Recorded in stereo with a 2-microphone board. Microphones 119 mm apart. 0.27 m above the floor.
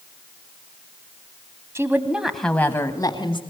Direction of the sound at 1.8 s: 25° right (ahead or behind).